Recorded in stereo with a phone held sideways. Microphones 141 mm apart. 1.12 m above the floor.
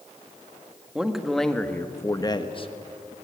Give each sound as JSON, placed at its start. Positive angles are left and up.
{"t": 0.9, "sound": "a man speaking", "side_deg": -5, "distance_m": 2.0}